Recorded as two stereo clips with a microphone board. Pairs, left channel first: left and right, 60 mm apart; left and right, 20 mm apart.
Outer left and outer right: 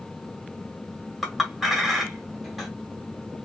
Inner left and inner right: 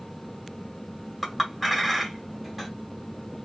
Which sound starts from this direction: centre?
A clink, at 1.2 s.